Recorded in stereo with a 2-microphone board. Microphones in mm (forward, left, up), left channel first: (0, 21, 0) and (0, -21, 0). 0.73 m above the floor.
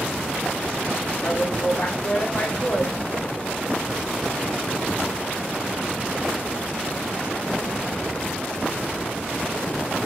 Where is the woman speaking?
35° left (ahead or behind), 2 m.